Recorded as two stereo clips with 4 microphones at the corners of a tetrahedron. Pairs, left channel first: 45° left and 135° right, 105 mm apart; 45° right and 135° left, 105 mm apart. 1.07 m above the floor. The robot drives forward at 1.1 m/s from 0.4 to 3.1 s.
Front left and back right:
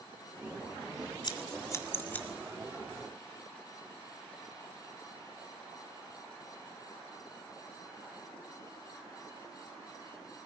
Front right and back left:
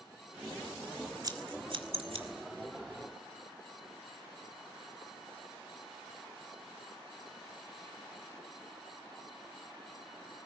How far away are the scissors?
About 1.7 m.